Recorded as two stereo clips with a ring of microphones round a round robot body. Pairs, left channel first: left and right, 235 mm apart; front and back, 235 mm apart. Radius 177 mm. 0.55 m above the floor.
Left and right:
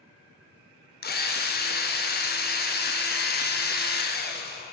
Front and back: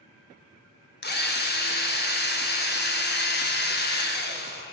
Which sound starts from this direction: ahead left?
A drill, at 1.0 s.